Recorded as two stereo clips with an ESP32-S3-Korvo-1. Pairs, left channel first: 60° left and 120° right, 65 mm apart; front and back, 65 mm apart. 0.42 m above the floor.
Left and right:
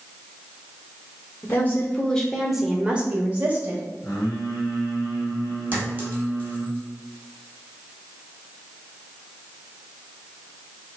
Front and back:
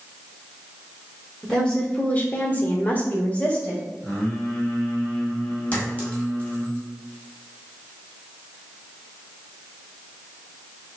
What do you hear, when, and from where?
1.4 s a woman speaking: 75° left, 1.0 m; by 3.8 s 65° right, 1.7 m
4.0 s singing: 60° left, 2 m
5.7 s a clink: 65° right, 1.9 m